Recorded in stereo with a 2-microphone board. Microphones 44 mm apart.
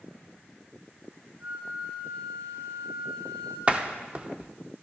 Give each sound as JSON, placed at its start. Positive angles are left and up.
{"t": 1.4, "sound": "a flute", "side_deg": -55, "distance_m": 4.0}
{"t": 3.7, "sound": "a door slam", "side_deg": -25, "distance_m": 0.7}